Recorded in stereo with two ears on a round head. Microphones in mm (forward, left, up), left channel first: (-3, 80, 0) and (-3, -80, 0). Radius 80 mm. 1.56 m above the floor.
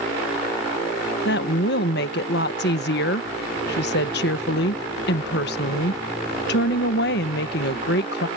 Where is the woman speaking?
65° left (ahead or behind).